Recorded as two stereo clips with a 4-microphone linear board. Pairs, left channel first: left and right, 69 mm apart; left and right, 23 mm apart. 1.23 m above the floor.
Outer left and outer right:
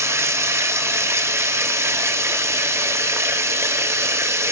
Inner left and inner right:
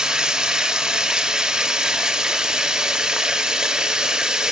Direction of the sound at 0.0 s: 40° right (ahead or behind).